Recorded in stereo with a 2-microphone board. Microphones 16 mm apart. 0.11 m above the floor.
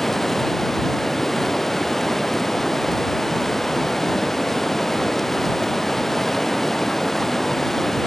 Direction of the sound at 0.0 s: 20° left (ahead or behind).